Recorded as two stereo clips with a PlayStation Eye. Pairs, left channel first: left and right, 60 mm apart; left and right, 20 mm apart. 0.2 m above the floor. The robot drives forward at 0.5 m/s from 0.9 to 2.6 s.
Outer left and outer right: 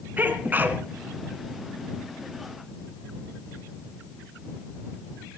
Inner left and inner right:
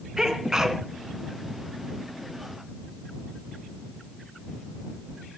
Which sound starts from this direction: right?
A sneeze, at 0.2 s.